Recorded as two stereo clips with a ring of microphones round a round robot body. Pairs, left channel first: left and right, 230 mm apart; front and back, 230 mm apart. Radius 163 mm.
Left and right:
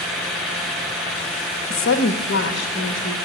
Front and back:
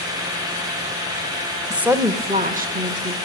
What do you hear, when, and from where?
1.7 s a woman speaking: 90° left, 0.8 m; by 3.1 s 145° left, 1.0 m